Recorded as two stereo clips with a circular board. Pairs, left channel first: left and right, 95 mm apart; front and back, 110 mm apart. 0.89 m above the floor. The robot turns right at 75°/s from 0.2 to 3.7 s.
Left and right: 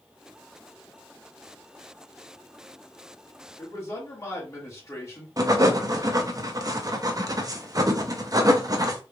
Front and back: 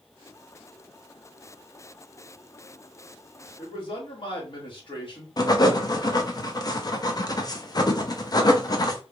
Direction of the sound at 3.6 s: 25° left.